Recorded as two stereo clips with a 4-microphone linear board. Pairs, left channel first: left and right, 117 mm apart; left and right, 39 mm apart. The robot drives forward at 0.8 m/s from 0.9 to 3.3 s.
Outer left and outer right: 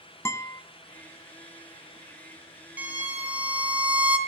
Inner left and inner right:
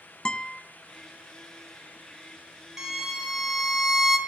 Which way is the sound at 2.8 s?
15° right (ahead or behind).